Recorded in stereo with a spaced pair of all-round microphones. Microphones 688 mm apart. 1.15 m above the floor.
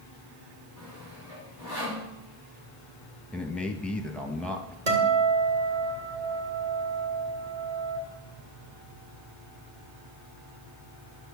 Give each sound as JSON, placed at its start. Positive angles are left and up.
{"t": 0.8, "sound": "sawing", "side_deg": -85, "distance_m": 3.0}
{"t": 3.3, "sound": "a man speaking", "side_deg": 0, "distance_m": 1.3}
{"t": 4.9, "sound": "a guitar", "side_deg": -65, "distance_m": 2.5}